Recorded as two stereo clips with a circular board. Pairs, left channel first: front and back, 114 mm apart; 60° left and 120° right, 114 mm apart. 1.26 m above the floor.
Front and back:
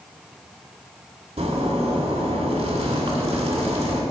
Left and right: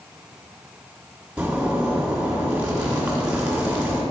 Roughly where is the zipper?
Behind.